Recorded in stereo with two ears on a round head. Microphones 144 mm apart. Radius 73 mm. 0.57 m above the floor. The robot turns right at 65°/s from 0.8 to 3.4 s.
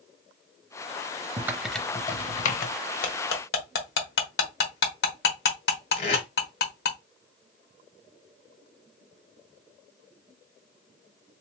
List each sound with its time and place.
1.4 s typing on a keyboard: 20° right (ahead or behind), 0.6 m; by 2.7 s 60° left (ahead or behind), 0.6 m
3.0 s cutlery clinking: 60° left (ahead or behind), 1.2 m; by 7.0 s 75° left (ahead or behind), 1.2 m
6.0 s tape being pulled: 45° left (ahead or behind), 1.6 m